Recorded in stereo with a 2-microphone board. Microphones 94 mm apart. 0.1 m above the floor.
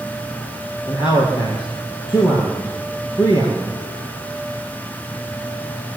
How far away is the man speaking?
About 3.5 m.